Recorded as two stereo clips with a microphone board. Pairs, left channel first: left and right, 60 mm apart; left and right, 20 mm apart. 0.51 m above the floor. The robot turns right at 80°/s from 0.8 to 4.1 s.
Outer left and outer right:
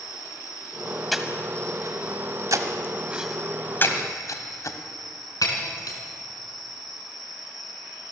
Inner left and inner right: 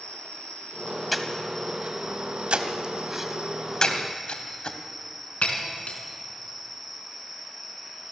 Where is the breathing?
Centre (ahead or behind), 1.6 m; by 4.8 s 60° left (ahead or behind), 1.6 m.